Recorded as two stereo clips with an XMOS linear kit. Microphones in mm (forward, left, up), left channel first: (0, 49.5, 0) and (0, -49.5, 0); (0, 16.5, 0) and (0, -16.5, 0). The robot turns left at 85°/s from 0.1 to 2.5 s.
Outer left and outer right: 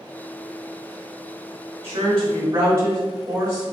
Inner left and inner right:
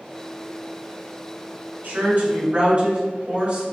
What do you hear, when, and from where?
1.8 s a woman speaking: 80° right, 1.4 m; by 3.6 s 135° right, 1.4 m